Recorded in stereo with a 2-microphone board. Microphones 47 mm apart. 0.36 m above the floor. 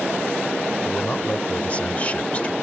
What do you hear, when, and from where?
0.8 s a man speaking: 30° left (ahead or behind)